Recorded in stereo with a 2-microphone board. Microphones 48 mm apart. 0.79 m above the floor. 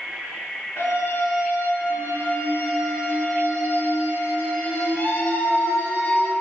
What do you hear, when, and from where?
0.8 s a scream: 80° left, 2.5 m; by 6.3 s 45° left (ahead or behind), 4 m